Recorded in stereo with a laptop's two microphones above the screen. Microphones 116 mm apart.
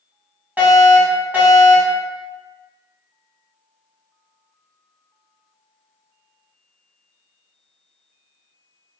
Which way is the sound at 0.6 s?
15° right (ahead or behind).